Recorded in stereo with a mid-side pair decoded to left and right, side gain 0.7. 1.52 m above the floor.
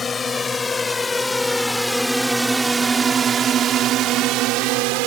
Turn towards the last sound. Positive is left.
turn(degrees=-70)